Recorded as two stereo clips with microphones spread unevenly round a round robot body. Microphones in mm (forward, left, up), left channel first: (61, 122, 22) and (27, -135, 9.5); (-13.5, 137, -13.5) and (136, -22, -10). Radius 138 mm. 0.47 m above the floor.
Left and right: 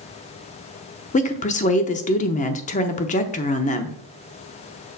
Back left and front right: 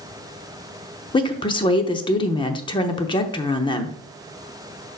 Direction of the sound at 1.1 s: 100° left.